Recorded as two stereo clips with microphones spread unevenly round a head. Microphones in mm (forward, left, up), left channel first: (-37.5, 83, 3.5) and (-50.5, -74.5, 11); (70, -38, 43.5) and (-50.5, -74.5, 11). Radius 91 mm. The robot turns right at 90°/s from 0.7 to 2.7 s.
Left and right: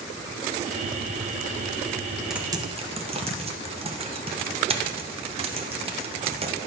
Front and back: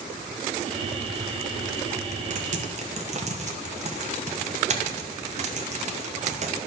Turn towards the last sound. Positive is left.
turn(degrees=-150)